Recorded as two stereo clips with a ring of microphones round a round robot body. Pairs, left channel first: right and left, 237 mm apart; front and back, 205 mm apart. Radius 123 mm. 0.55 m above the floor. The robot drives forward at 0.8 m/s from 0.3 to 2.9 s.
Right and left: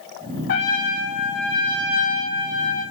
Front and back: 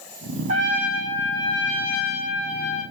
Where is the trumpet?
120° right, 2 m; by 2.8 s 150° right, 3.5 m.